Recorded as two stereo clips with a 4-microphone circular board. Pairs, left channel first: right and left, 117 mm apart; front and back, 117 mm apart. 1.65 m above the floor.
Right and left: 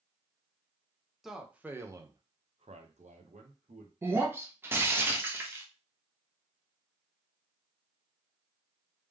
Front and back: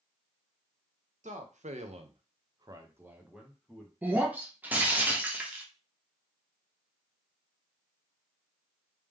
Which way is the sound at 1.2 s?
175° left.